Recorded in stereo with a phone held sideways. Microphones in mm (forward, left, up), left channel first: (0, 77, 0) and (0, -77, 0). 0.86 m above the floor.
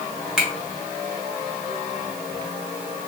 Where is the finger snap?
5° right (ahead or behind), 1.2 m.